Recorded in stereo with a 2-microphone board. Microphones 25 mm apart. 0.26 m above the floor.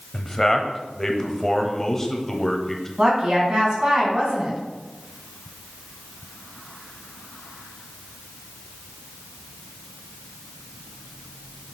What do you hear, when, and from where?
0.1 s a man speaking: 15° left (ahead or behind), 0.9 m
3.0 s a woman speaking: 40° right (ahead or behind), 2.5 m